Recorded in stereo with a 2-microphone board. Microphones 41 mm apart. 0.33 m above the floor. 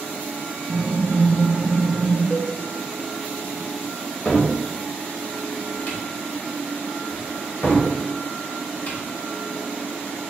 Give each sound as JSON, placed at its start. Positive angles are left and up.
{"t": 0.7, "sound": "typing on a keyboard", "side_deg": -50, "distance_m": 1.2}
{"t": 2.3, "sound": "a cowbell", "side_deg": 50, "distance_m": 0.5}
{"t": 4.2, "sound": "a cupboard door", "side_deg": 40, "distance_m": 1.0}